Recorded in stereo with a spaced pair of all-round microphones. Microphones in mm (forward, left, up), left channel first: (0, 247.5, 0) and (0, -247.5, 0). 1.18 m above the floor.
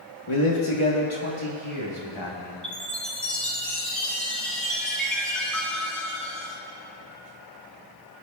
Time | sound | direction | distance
0.3 | a man speaking | 80° left | 1.2 m
2.6 | a chime | centre (ahead or behind) | 2 m